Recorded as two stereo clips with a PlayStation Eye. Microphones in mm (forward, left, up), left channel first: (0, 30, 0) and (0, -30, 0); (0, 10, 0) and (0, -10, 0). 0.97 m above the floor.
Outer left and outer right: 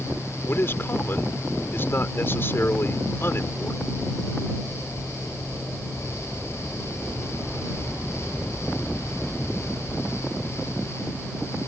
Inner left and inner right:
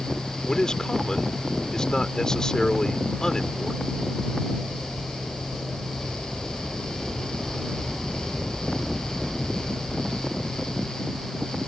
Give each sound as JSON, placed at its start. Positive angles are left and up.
{"t": 0.5, "sound": "a man speaking", "side_deg": 40}